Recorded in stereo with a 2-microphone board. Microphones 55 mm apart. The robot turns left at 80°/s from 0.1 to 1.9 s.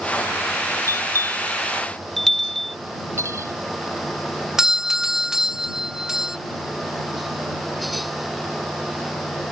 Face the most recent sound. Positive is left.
turn(degrees=-10)  # may be behind; listen again after turning